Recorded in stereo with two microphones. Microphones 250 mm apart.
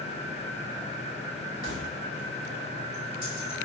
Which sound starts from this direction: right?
Keys jangling, at 1.6 s.